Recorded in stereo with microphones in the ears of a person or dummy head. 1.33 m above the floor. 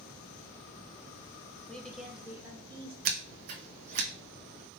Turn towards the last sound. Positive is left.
turn(degrees=-50)  # may be behind; listen again after turning